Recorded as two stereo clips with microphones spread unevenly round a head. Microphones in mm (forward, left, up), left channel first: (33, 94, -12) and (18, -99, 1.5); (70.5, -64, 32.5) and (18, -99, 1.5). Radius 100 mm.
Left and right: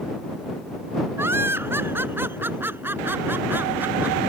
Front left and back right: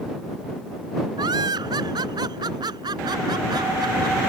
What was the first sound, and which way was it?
Laughter, 175° right.